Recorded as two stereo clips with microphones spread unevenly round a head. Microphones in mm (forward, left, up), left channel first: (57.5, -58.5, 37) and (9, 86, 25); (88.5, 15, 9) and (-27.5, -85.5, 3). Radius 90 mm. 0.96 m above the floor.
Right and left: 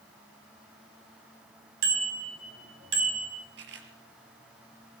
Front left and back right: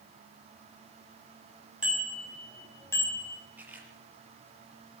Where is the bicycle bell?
135° left, 5.5 m; by 3.4 s 110° left, 5.5 m.